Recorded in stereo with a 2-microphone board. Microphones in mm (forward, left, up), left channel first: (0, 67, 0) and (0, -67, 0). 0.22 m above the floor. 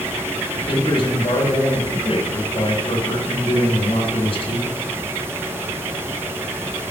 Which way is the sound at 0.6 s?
45° left (ahead or behind).